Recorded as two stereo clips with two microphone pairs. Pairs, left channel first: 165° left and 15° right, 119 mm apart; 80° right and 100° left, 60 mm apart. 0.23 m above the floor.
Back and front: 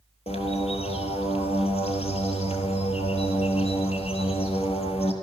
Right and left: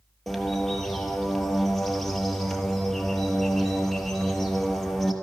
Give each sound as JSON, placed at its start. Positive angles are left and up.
{"t": 0.3, "sound": "a bird", "azimuth_deg": -165, "distance_m": 1.4}